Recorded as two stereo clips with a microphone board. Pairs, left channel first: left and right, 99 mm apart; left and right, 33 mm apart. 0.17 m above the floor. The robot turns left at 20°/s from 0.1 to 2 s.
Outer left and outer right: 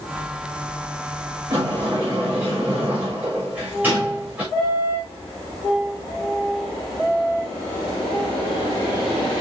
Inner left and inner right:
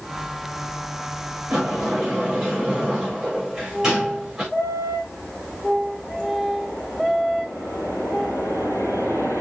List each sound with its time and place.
1.5 s a sliding door: 25° right (ahead or behind), 6 m; by 4.4 s 15° right (ahead or behind), 6 m